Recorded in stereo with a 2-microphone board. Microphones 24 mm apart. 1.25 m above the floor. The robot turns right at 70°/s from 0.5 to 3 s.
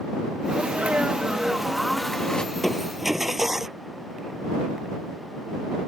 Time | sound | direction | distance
0.5 | a sneeze | 95° right | ?
2.5 | crushing | 160° left | ?